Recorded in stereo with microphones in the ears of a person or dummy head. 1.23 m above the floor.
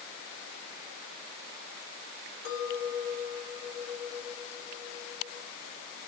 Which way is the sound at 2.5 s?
50° left (ahead or behind).